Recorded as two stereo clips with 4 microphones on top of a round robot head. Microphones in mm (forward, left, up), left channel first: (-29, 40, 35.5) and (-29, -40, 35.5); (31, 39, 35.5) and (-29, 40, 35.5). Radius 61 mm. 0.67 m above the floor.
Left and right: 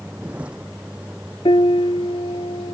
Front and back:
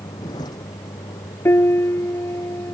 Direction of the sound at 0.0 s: 10° right.